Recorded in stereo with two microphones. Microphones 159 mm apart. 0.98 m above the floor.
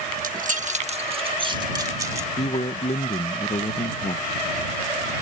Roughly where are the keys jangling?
Right.